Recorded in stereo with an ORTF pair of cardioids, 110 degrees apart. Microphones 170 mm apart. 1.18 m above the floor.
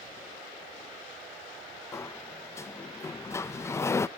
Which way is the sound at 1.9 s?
15° left.